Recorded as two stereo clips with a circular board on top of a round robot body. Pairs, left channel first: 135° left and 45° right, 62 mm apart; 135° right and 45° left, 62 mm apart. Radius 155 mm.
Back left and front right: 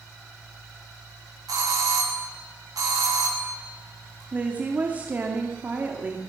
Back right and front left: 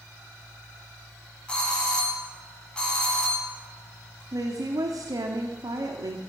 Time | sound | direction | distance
1.5 | a doorbell | 60° right | 9 m
4.3 | a woman speaking | 20° left | 2 m